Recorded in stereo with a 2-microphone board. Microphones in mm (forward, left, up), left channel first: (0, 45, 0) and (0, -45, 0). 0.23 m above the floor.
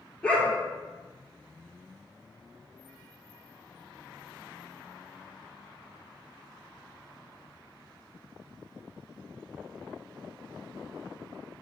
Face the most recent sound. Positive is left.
turn(degrees=10)  # may be behind; listen again after turning